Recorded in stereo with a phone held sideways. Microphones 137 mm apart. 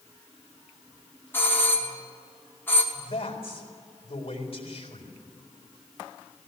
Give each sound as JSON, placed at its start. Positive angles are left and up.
{"t": 1.3, "sound": "a doorbell", "side_deg": 15, "distance_m": 2.5}
{"t": 2.9, "sound": "a man speaking", "side_deg": 50, "distance_m": 4.0}